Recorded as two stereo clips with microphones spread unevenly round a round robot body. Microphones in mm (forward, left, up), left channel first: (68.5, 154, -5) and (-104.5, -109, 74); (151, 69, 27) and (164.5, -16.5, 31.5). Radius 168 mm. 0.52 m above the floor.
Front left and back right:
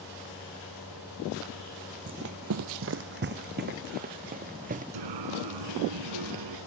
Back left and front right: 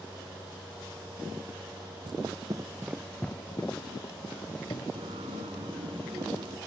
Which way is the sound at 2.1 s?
85° right.